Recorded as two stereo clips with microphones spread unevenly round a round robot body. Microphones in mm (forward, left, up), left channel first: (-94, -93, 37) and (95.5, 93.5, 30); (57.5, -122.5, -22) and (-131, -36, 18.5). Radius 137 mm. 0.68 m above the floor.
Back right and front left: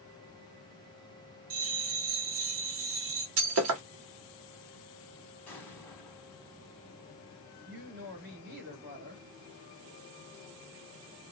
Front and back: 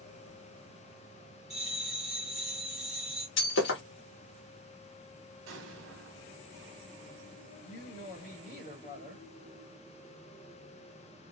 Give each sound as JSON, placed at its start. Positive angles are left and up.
{"t": 1.5, "sound": "a bell", "azimuth_deg": 55, "distance_m": 1.0}
{"t": 3.4, "sound": "breaking glass", "azimuth_deg": 10, "distance_m": 1.0}
{"t": 5.5, "sound": "an explosion", "azimuth_deg": 140, "distance_m": 0.8}
{"t": 7.7, "sound": "a woman speaking", "azimuth_deg": 0, "distance_m": 1.4}